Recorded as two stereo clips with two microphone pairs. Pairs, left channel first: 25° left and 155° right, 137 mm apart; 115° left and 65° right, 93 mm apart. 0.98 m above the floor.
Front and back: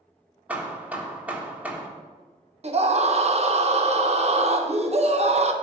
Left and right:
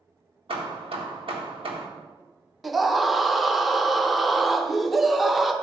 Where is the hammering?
75° right, 1.5 m.